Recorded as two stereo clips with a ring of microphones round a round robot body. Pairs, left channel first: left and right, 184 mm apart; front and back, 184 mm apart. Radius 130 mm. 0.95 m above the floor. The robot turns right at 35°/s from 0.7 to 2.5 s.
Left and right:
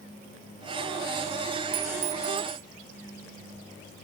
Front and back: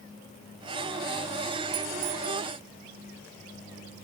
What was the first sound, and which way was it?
A clink, 120° right.